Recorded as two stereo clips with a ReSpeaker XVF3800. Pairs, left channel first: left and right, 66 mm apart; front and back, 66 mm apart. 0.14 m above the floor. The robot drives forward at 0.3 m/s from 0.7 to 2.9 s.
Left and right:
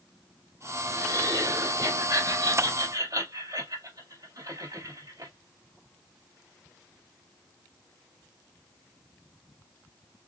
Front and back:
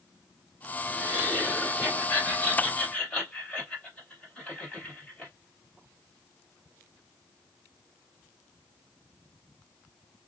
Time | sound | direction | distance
0.9 | laughter | 65° right | 3.5 m